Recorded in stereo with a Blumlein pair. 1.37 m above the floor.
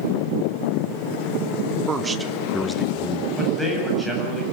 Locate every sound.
1.9 s a man speaking: 25° right, 2 m; by 3.3 s 30° left, 1.8 m
3.4 s a man speaking: 5° right, 8 m